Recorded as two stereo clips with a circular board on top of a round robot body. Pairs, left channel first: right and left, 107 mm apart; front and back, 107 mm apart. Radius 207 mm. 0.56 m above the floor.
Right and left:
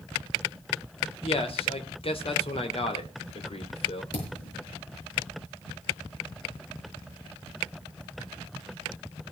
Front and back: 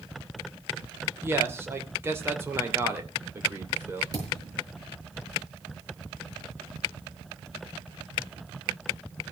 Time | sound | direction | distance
1.2 | a man speaking | 115° right | 3 m
4.1 | a thud | 125° right | 7 m